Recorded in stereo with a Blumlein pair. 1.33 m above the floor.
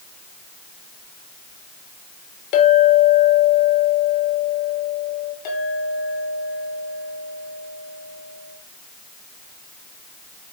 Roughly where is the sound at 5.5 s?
Ahead left.